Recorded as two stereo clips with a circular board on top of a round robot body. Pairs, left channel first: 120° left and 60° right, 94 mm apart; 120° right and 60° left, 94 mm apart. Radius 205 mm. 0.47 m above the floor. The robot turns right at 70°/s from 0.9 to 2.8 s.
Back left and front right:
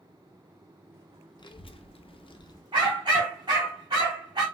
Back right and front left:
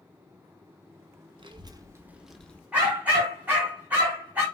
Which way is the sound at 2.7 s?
20° right.